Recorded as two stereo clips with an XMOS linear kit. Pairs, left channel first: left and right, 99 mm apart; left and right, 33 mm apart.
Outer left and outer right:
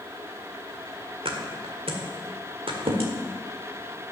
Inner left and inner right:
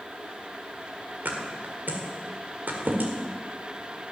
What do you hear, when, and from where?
1.2 s a thud: 70° right (ahead or behind), 1.7 m